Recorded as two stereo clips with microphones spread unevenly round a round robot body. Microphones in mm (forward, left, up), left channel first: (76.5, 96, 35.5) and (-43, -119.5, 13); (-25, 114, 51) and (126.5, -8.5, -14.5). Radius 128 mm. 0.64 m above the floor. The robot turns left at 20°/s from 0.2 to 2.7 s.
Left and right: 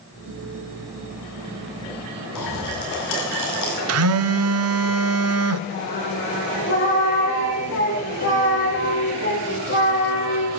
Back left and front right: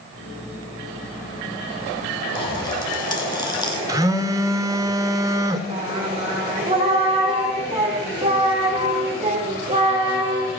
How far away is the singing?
About 8 m.